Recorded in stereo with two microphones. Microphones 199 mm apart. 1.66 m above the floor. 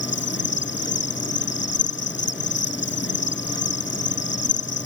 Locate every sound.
0.0 s an insect: 65° left (ahead or behind)